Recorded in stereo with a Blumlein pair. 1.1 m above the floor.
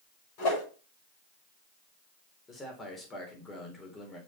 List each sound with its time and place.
0.4 s a whoosh: 40° left, 6 m
2.5 s a man speaking: 15° left, 3.5 m